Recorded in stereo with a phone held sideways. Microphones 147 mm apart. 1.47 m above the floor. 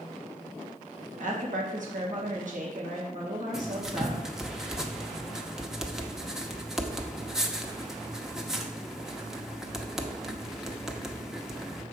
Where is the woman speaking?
60° right (ahead or behind), 1.8 m.